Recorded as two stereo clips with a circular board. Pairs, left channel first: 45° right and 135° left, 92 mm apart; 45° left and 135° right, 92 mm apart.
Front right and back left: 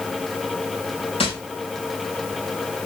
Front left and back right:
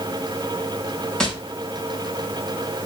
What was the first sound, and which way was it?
Tapping, 35° right.